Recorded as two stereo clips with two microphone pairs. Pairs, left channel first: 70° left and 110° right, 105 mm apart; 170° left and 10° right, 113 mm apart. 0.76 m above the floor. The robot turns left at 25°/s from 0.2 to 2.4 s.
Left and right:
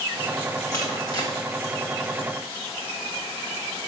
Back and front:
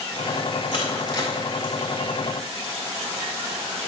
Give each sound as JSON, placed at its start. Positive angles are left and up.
{"t": 0.7, "sound": "crushing", "azimuth_deg": 130, "distance_m": 1.9}